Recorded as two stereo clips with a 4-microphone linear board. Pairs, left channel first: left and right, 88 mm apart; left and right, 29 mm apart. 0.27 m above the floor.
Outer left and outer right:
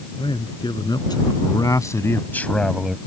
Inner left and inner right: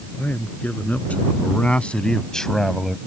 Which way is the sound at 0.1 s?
65° left (ahead or behind).